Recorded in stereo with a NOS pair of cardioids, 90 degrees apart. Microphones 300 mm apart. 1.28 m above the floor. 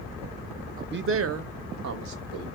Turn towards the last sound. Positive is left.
turn(degrees=-70)